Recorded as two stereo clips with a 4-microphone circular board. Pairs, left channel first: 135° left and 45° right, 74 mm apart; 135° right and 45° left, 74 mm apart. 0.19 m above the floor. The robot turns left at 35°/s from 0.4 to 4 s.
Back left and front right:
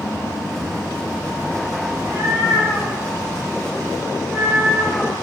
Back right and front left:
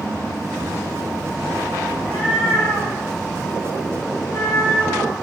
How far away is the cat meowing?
About 1.7 m.